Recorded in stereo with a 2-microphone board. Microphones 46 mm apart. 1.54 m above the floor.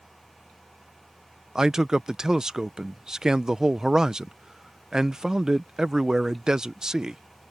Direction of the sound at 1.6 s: 15° right (ahead or behind).